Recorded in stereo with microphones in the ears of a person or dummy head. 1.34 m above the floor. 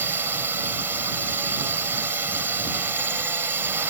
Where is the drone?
10° right (ahead or behind).